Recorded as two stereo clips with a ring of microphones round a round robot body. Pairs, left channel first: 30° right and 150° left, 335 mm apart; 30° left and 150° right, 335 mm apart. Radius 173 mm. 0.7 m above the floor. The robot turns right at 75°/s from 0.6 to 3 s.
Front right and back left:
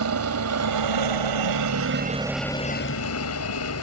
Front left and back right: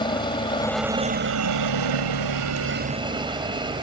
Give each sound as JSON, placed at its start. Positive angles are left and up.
{"t": 0.0, "sound": "a helicopter", "azimuth_deg": 105}